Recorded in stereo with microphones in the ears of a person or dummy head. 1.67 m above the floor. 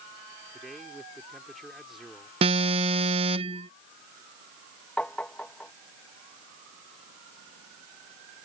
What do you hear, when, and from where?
0.5 s a man speaking: 5° right (ahead or behind)
2.4 s an alarm: 30° right (ahead or behind)
5.0 s tapping: 5° left (ahead or behind)